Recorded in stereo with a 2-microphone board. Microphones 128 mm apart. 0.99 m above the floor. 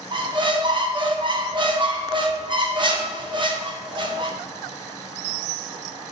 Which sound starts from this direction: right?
A squeak, at 0.1 s.